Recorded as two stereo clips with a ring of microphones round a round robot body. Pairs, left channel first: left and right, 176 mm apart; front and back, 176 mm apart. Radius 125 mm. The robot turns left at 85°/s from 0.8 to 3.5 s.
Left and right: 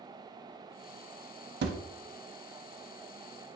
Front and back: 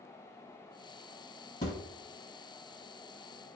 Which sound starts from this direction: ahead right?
A thud, at 1.6 s.